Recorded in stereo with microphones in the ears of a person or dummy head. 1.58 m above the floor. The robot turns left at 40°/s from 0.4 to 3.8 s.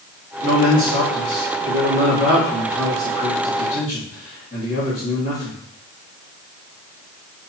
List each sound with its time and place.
0.4 s a man speaking: 70° right, 2 m; by 5.6 s 155° left, 2 m